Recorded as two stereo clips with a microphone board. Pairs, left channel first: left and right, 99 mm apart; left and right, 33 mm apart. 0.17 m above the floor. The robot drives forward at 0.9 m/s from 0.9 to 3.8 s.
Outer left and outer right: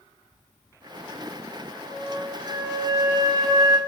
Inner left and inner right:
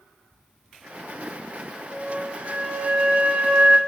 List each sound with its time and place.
1.8 s a flute: 30° right (ahead or behind), 3 m; by 3.8 s 40° right (ahead or behind), 2 m